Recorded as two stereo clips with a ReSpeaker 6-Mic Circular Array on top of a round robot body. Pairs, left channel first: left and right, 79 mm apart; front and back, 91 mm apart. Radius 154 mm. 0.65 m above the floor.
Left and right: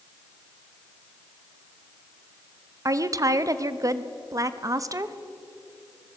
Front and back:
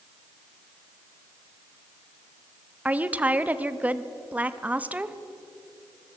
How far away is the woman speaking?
About 1.2 m.